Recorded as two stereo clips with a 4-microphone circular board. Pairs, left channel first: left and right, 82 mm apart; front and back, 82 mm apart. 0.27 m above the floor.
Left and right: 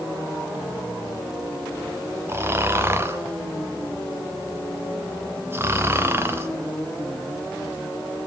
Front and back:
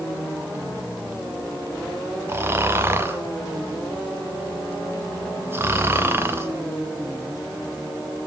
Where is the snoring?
135° right, 0.8 m.